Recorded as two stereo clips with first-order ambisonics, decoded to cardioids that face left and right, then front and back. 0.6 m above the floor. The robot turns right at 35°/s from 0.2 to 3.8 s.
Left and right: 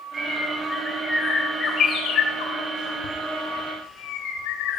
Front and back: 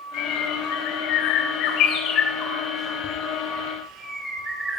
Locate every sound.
0.1 s a bird: 25° right, 3.5 m; by 4.8 s 105° left, 3.5 m